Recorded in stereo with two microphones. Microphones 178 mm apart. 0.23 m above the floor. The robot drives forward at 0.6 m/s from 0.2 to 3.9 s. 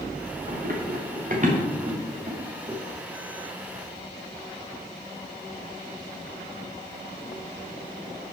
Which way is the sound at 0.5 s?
60° right (ahead or behind).